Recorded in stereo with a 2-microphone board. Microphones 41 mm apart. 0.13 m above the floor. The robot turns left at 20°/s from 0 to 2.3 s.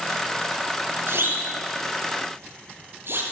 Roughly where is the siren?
Right.